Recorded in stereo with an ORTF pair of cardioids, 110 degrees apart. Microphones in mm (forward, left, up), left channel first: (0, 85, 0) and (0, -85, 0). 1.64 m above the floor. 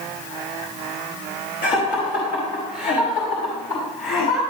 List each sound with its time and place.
1.6 s laughter: 55° left, 4 m